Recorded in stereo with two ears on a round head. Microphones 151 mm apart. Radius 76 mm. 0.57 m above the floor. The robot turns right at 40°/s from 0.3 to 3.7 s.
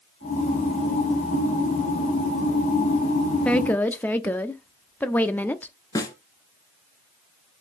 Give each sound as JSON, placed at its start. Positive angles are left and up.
{"t": 3.5, "sound": "a woman speaking", "side_deg": 5, "distance_m": 0.6}
{"t": 6.0, "sound": "a snare drum", "side_deg": 20, "distance_m": 1.3}